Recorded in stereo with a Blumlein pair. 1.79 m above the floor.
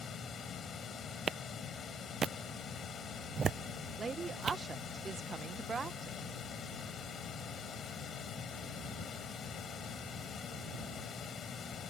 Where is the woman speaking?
15° right.